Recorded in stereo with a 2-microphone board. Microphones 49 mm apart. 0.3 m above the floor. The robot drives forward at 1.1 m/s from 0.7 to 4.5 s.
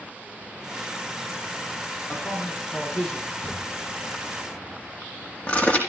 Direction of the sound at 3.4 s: 35° left (ahead or behind).